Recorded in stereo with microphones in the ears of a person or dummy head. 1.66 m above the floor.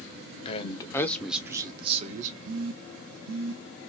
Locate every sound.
0.5 s a man speaking: 35° left (ahead or behind), 0.8 m; by 2.4 s 45° right (ahead or behind), 0.8 m
2.5 s a phone buzzing: 70° right (ahead or behind), 0.7 m